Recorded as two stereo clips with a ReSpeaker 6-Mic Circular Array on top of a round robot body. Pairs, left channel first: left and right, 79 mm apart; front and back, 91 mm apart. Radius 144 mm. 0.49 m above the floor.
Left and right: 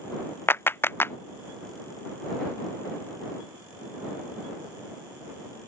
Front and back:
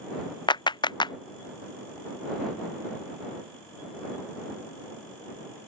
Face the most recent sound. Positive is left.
turn(degrees=30)